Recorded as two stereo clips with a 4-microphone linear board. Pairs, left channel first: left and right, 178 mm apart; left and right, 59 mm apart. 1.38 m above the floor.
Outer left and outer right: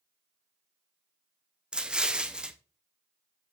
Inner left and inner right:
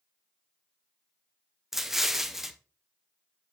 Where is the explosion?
5° right (ahead or behind), 0.7 m.